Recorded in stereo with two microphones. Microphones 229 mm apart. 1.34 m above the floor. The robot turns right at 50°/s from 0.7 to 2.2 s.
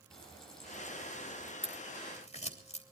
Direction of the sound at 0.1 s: Straight behind.